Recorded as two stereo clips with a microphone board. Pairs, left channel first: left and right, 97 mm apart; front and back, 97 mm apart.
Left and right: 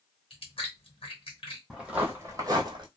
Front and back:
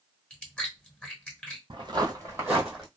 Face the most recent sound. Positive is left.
turn(degrees=-90)